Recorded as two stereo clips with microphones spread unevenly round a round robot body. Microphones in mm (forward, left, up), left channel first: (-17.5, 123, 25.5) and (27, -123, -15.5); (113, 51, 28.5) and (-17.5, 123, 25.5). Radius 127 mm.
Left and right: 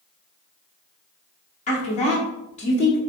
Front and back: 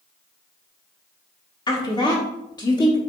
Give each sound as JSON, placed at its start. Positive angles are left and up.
{"t": 1.7, "sound": "a woman speaking", "azimuth_deg": 35, "distance_m": 1.3}